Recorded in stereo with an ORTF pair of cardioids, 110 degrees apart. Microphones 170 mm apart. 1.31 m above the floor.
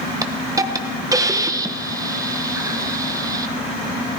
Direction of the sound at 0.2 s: 20° right.